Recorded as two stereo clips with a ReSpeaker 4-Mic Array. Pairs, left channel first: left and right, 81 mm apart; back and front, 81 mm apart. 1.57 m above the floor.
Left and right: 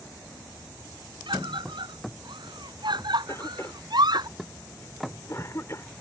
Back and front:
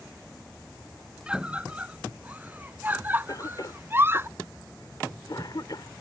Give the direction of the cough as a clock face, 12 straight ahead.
7 o'clock.